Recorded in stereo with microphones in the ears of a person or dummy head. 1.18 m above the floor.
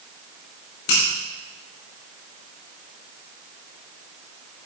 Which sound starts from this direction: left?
A finger snap, at 0.9 s.